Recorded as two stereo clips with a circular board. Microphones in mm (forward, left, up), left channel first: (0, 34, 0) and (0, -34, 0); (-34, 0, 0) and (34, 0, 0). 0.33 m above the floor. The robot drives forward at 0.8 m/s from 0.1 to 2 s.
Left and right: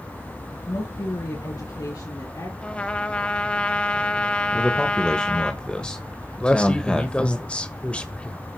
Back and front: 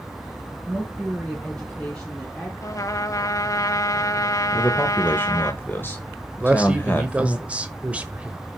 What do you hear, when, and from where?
0.7 s a woman speaking: 90° left, 3.5 m; by 2.5 s 105° left, 4 m
2.6 s a trumpet: 160° left, 0.8 m
4.5 s a man speaking: 155° left, 0.9 m
6.4 s a man speaking: 40° left, 1.1 m